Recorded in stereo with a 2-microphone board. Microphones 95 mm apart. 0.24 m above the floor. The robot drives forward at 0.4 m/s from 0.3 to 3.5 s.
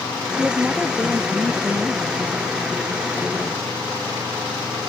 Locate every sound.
0.3 s a woman speaking: 5° right (ahead or behind)